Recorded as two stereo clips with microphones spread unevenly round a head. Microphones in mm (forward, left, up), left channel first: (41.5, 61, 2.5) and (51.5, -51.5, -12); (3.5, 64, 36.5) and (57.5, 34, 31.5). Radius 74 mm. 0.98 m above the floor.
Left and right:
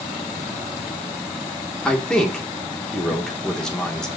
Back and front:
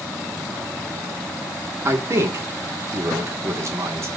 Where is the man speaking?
10° left, 3 m.